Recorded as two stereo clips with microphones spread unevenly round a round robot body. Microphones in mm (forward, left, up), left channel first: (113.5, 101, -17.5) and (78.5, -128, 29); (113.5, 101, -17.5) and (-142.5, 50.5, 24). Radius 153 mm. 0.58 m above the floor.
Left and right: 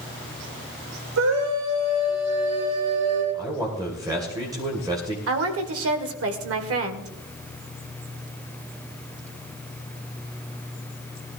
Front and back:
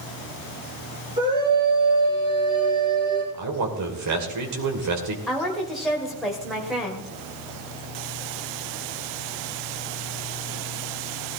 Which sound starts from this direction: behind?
A man speaking, at 3.3 s.